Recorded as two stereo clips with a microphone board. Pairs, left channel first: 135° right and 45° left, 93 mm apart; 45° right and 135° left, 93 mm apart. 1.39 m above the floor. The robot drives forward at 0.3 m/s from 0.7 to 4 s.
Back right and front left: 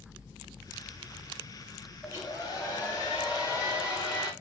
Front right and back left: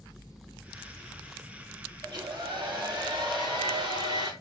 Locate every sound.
2.0 s a hair dryer: 175° left, 2.5 m